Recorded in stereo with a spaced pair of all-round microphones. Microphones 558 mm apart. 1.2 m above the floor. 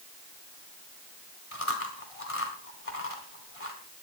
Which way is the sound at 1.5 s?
75° left (ahead or behind).